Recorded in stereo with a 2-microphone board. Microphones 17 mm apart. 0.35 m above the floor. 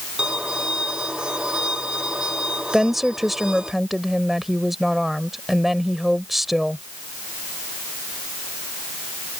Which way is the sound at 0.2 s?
60° right (ahead or behind).